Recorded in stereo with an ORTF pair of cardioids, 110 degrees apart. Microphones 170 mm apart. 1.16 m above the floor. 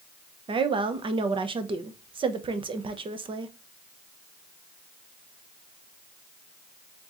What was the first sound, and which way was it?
A woman speaking, 30° right.